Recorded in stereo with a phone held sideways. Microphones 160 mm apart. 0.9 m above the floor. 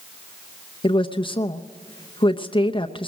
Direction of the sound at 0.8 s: 35° left (ahead or behind).